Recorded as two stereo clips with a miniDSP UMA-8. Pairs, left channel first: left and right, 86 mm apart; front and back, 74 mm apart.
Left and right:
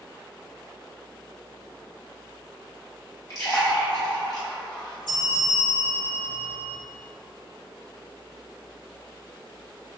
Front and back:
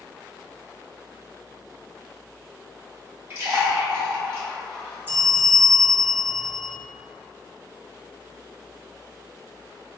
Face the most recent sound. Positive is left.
turn(degrees=120)